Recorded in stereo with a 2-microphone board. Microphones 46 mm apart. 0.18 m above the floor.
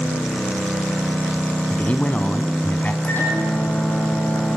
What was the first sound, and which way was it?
A man speaking, 35° left (ahead or behind).